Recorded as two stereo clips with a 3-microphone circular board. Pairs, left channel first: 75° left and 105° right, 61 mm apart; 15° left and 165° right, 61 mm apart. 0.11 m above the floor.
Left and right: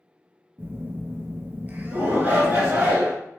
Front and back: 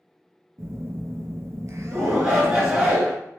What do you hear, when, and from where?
0.6 s a phone buzzing: 155° right, 0.6 m
1.9 s a shout: 100° right, 1.2 m